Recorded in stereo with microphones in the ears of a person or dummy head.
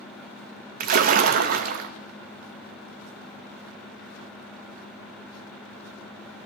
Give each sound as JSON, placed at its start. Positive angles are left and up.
{"t": 0.8, "sound": "a splash", "side_deg": -45, "distance_m": 0.8}